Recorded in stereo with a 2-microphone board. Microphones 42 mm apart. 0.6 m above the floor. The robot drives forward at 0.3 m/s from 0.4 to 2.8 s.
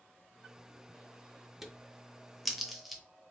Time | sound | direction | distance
1.6 | a crack | 5° right (ahead or behind) | 0.5 m